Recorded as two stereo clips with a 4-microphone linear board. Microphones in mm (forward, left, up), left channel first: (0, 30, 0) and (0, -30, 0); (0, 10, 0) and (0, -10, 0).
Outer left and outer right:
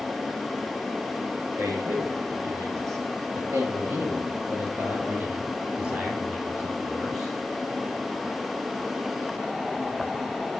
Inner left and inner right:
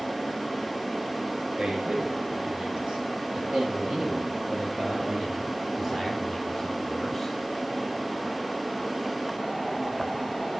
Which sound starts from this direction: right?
A man speaking, at 1.6 s.